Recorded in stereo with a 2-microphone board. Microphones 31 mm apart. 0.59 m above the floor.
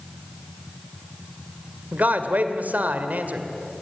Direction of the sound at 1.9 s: 70° right (ahead or behind).